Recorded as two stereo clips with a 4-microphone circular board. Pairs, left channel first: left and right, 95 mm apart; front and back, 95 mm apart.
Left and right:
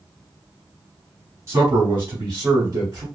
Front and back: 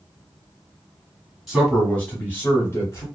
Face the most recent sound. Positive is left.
turn(degrees=-40)